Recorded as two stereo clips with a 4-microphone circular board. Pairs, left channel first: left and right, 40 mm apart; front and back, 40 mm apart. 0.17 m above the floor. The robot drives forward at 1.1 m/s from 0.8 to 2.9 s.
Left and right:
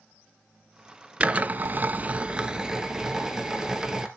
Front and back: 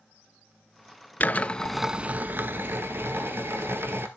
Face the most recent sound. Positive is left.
turn(degrees=-165)